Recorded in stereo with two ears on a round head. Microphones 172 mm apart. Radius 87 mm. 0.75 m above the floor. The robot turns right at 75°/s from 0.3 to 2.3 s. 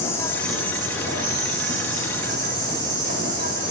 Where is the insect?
165° left, 5.5 m; by 3.7 s 45° right, 5.5 m.